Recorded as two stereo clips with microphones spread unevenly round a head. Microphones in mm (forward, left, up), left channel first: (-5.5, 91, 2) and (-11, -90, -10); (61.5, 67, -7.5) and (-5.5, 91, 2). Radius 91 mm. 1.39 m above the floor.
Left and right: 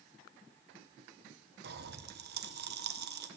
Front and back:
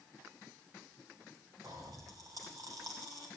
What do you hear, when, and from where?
1.6 s a pop: 130° right, 0.8 m